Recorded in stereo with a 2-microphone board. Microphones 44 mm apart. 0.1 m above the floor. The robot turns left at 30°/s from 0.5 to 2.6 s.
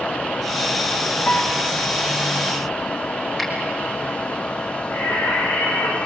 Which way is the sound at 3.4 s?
5° left (ahead or behind).